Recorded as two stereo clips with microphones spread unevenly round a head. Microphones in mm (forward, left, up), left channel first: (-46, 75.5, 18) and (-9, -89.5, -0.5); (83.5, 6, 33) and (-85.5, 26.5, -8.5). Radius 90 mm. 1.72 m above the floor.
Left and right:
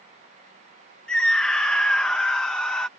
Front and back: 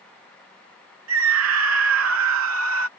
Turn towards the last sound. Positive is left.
turn(degrees=-175)